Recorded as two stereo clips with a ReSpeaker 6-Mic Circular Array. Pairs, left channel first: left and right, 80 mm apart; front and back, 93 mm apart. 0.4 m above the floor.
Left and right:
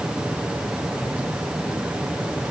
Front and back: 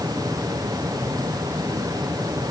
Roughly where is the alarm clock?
I don't hear an alarm clock.